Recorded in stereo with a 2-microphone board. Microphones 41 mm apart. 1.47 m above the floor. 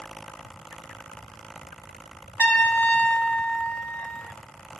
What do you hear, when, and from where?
2.4 s a trumpet: 35° left (ahead or behind), 0.8 m